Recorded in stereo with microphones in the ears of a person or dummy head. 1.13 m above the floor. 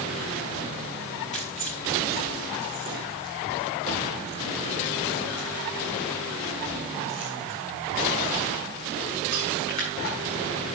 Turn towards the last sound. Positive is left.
turn(degrees=55)  # may be behind; listen again after turning